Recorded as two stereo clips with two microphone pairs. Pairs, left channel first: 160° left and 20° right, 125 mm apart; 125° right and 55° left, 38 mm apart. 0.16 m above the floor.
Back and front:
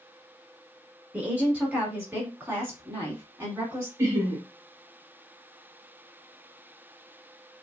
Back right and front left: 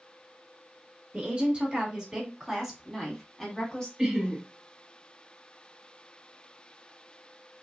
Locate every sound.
1.1 s a woman speaking: 55° left, 2.0 m; by 3.9 s 70° right, 1.8 m
4.0 s laughter: 5° left, 1.1 m